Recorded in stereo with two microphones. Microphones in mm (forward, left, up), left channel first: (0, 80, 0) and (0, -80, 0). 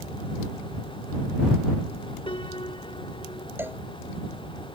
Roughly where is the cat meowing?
I don't hear a cat meowing.